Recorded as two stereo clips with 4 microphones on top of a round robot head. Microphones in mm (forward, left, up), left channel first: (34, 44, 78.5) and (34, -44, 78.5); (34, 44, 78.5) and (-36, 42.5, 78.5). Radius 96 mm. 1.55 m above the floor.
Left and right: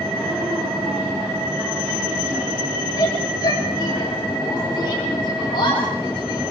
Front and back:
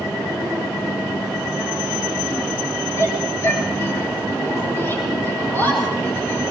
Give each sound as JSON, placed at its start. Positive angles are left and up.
{"t": 3.0, "sound": "a shout", "azimuth_deg": 45, "distance_m": 7.0}